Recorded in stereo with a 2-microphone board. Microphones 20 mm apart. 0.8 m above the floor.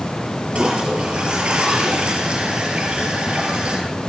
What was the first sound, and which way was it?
A toilet flushing, 50° right (ahead or behind).